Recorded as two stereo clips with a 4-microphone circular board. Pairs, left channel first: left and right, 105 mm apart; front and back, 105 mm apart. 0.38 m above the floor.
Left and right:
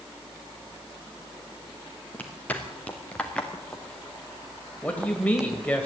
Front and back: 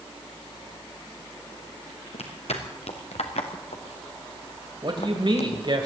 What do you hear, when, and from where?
2.1 s footsteps: 15° left, 3.5 m; by 5.7 s 10° right, 1.4 m
4.8 s a man speaking: 160° left, 2.0 m